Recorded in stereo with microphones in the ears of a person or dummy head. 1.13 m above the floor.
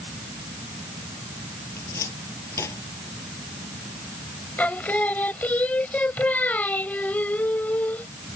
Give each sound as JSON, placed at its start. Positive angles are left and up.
{"t": 1.8, "sound": "a cupboard door", "side_deg": 15}
{"t": 4.6, "sound": "singing", "side_deg": 10}